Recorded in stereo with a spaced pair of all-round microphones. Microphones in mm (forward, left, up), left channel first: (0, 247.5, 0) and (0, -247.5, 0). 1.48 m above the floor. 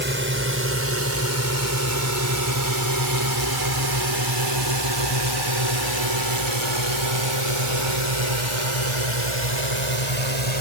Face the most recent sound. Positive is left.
turn(degrees=-90)